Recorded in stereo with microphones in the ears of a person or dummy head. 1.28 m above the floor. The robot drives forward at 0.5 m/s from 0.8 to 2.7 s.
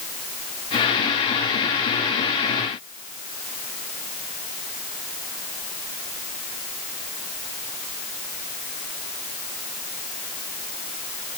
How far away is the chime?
I don't hear a chime.